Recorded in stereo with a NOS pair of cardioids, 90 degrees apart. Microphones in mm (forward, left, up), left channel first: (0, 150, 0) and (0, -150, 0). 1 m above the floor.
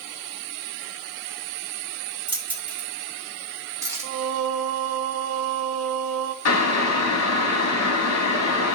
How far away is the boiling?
About 2 m.